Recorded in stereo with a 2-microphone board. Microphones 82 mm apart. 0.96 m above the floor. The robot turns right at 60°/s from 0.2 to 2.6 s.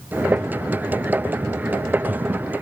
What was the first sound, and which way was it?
Only background noise.